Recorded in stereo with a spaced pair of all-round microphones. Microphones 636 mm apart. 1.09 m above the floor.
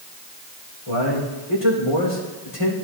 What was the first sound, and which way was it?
A man speaking, 60° left (ahead or behind).